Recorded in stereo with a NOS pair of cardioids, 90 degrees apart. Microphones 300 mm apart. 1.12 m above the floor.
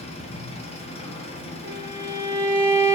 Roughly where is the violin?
Ahead right.